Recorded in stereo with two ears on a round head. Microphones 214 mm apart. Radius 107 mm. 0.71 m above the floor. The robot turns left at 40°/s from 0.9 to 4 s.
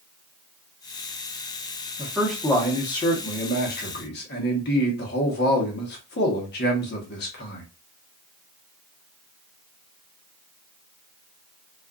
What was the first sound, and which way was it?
A man speaking, 165° right.